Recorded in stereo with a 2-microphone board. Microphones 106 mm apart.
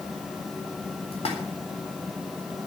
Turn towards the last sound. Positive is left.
turn(degrees=70)  # may be behind; listen again after turning